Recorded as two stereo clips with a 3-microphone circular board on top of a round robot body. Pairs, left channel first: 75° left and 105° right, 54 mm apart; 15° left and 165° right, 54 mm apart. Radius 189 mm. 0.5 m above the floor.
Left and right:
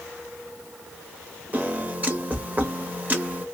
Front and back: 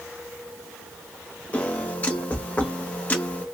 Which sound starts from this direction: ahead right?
A piano, at 1.5 s.